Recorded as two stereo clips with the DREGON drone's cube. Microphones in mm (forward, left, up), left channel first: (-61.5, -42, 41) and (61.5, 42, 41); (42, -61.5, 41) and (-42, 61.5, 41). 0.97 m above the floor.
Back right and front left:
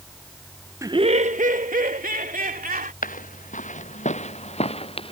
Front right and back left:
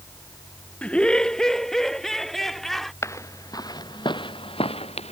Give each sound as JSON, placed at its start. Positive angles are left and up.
{"t": 0.8, "sound": "laughter", "azimuth_deg": 15}
{"t": 3.0, "sound": "footsteps", "azimuth_deg": -125}